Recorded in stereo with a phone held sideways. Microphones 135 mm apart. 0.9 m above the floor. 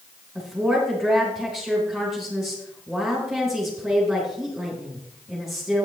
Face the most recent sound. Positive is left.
turn(degrees=0)  # may be behind; listen again after turning